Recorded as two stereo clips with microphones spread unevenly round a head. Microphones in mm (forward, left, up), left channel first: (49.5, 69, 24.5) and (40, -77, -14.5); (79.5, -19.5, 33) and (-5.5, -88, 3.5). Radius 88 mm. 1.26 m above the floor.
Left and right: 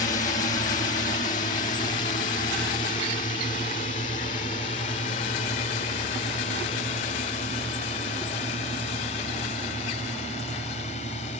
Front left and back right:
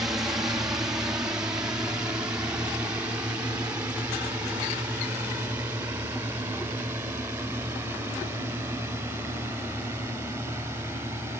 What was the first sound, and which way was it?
A drone, 140° left.